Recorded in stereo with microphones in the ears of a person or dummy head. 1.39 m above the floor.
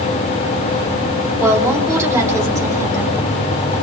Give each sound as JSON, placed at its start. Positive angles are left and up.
{"t": 1.4, "sound": "a woman speaking", "side_deg": -15, "distance_m": 3.5}